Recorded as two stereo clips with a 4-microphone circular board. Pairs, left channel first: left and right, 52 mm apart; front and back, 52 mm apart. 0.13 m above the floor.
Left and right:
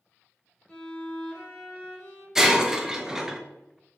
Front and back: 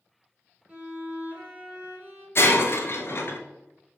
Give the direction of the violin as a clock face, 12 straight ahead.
7 o'clock.